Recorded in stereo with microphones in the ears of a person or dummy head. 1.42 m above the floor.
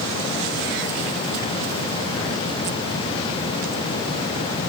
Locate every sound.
Only background noise.